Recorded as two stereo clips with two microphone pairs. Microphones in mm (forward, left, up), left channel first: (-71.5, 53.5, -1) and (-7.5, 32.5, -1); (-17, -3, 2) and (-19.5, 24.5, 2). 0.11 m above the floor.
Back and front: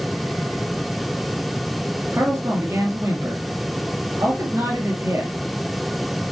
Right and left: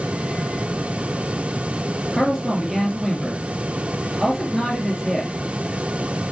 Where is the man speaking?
5° left, 2 m.